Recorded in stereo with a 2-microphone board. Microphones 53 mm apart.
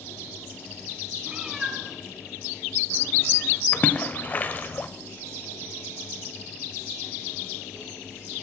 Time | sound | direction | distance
1.3 | a cat meowing | 20° right (ahead or behind) | 1.3 m
3.7 | a splash | 35° left (ahead or behind) | 0.5 m